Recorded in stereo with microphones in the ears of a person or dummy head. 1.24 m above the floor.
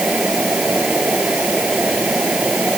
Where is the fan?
Centre (ahead or behind).